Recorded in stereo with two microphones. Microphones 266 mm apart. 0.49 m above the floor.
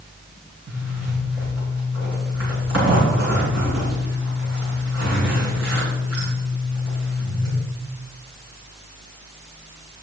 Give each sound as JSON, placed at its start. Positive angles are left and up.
{"t": 0.7, "sound": "a zipper", "side_deg": -65, "distance_m": 6.0}